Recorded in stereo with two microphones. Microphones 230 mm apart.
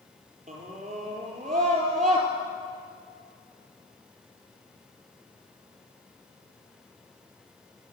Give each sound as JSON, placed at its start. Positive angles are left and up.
{"t": 0.5, "sound": "a scream", "side_deg": -30, "distance_m": 5.0}